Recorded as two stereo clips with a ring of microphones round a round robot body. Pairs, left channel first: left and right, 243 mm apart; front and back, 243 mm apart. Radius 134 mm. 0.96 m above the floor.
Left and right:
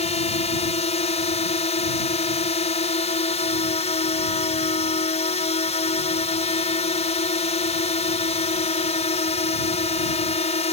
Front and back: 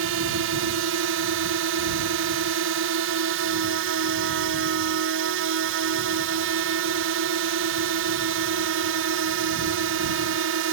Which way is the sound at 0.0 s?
150° left.